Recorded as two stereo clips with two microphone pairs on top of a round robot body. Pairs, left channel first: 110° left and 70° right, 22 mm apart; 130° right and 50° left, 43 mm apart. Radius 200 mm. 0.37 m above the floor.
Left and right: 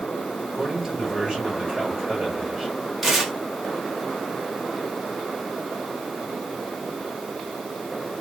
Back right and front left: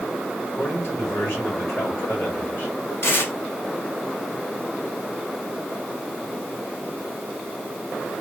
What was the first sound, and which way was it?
A man speaking, 140° right.